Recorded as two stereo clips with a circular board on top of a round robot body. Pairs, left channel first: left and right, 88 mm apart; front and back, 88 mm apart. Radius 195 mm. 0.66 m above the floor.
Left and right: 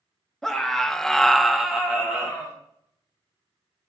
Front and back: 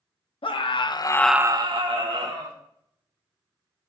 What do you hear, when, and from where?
0.4 s a scream: 5° left, 1.5 m; by 2.6 s 175° right, 2 m